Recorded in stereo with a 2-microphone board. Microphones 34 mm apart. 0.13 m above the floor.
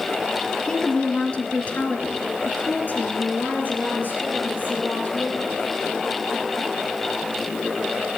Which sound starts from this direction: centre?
A woman speaking, at 0.7 s.